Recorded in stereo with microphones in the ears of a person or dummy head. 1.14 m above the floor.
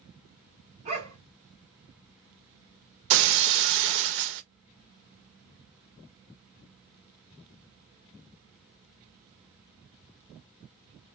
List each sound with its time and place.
0.8 s a dog barking: 35° right (ahead or behind), 2.0 m
3.1 s breaking glass: 60° right (ahead or behind), 0.6 m